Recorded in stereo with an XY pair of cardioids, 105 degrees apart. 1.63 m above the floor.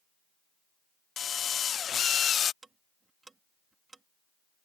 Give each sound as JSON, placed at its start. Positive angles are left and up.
{"t": 1.2, "sound": "a drill", "azimuth_deg": 50}
{"t": 2.6, "sound": "ticking", "azimuth_deg": -25}